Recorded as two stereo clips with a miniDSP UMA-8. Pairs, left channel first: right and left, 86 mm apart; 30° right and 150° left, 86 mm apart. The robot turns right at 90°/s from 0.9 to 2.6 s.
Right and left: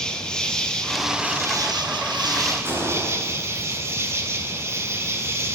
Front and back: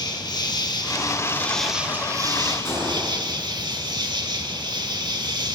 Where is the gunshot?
30° left, 9 m.